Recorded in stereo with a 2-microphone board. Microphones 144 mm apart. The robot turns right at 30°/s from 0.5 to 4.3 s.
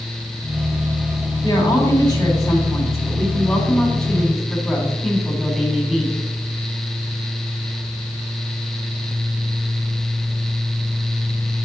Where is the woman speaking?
95° left, 1.8 m; by 6.2 s straight behind, 1.8 m.